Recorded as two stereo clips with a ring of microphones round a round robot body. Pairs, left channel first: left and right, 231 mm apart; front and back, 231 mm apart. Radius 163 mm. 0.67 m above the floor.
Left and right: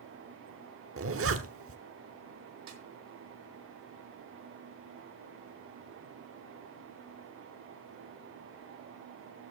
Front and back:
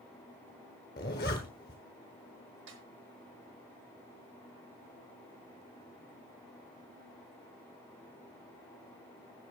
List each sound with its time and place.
1.0 s a zipper: 65° right, 1.1 m
2.7 s a snare drum: 125° right, 1.0 m